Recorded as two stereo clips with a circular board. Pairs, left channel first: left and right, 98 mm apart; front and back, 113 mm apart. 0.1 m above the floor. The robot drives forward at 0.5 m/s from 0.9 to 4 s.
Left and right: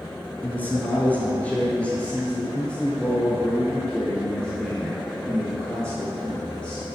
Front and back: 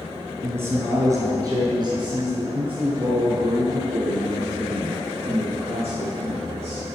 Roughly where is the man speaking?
Behind left.